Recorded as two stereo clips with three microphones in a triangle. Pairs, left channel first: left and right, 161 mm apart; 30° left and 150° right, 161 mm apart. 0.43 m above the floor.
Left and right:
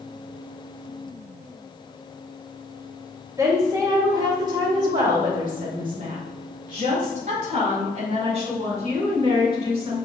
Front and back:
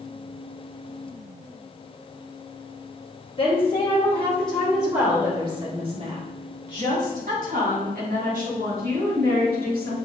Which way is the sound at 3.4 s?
25° right.